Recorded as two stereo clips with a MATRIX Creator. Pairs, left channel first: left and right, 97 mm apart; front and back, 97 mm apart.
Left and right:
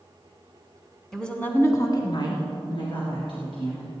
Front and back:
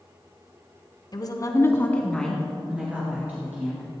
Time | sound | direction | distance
1.1 | a woman speaking | 5° left | 1.7 m